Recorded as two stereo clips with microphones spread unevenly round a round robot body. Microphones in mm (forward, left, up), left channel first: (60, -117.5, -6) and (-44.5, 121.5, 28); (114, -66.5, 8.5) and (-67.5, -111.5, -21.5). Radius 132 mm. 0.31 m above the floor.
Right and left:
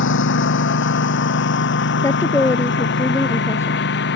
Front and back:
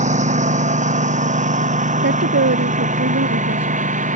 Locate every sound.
0.0 s a lawn mower: 115° right; by 4.2 s 120° right
2.0 s a woman speaking: 145° right